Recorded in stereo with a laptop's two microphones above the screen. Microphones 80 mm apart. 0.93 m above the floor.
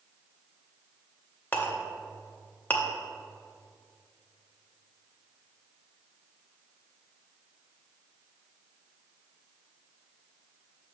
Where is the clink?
20° left (ahead or behind), 0.6 m.